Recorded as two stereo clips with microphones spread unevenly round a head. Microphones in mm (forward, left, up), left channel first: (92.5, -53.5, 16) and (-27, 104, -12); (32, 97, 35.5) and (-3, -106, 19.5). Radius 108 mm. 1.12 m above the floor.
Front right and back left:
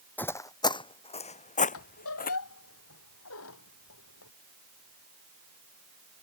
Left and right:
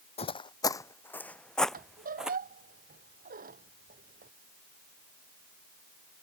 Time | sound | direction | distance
0.2 | footsteps | 25° left | ?
1.7 | a squeak | 50° right | ?